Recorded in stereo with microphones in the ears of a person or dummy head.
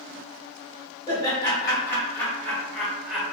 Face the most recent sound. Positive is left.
turn(degrees=-10)  # may be behind; listen again after turning